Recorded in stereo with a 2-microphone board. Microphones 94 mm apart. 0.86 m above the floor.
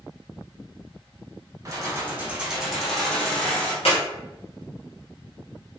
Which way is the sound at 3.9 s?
85° left.